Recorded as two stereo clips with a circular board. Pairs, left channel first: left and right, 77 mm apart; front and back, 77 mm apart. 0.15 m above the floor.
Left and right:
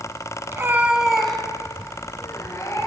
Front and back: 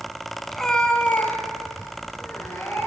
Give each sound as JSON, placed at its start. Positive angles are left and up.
{"t": 0.5, "sound": "a cat meowing", "azimuth_deg": -85, "distance_m": 0.7}